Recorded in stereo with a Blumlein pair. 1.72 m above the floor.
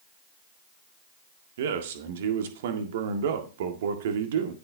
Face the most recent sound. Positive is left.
turn(degrees=-55)